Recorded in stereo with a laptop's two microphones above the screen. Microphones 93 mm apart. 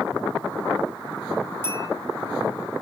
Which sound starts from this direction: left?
A bell, at 1.6 s.